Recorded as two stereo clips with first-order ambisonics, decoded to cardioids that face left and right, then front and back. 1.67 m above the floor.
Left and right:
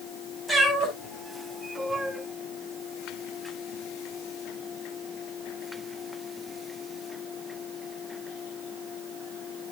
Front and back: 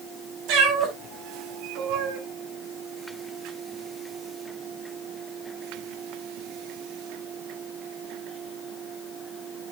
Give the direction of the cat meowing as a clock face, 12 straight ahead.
6 o'clock.